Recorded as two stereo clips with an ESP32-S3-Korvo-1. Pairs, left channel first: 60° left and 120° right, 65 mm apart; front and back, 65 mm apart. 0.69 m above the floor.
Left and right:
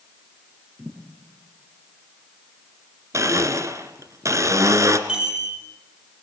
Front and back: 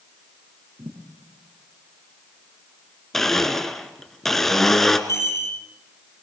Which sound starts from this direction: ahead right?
A chime, at 5.1 s.